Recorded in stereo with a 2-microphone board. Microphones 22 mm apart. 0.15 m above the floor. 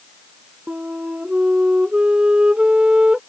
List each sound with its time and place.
0.7 s a flute: 45° right (ahead or behind)